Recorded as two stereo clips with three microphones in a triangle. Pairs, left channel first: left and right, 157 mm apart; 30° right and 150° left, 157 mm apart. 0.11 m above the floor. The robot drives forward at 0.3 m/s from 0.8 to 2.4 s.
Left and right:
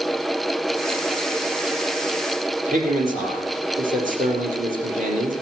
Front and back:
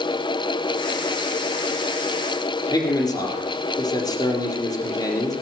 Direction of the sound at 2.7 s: 90° right.